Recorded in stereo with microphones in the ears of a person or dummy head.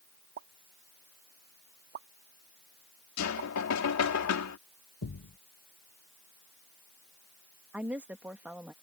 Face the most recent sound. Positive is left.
turn(degrees=-5)  # may be behind; listen again after turning